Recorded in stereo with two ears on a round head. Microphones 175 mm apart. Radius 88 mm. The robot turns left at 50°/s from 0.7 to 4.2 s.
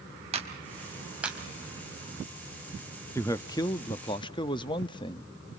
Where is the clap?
35° right (ahead or behind), 3.5 m; by 1.4 s centre (ahead or behind), 3.5 m.